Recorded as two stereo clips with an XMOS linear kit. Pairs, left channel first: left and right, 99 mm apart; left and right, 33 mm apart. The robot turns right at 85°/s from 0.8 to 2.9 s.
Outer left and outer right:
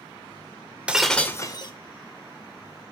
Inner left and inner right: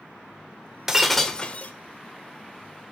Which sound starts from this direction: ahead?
Breaking glass, at 0.9 s.